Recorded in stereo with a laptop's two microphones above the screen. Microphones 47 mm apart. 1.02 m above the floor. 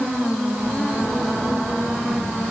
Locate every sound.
Only background noise.